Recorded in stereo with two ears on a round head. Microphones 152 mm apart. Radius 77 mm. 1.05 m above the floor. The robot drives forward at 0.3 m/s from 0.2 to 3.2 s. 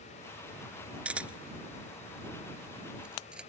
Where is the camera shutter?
10° right (ahead or behind); by 3.5 s 5° right (ahead or behind).